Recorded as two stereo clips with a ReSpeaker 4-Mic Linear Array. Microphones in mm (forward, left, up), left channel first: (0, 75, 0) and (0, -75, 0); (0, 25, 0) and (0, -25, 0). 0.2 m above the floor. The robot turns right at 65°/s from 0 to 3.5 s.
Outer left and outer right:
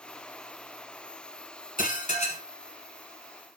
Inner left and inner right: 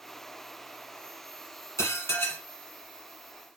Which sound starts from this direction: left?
Dishes clattering, at 1.8 s.